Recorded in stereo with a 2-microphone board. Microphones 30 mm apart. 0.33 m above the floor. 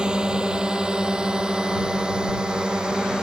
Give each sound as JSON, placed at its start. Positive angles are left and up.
{"t": 0.0, "sound": "a drone", "side_deg": -30}